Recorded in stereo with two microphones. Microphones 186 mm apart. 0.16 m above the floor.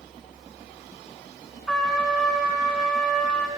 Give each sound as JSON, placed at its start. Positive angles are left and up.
{"t": 1.7, "sound": "a trumpet", "side_deg": 5, "distance_m": 1.6}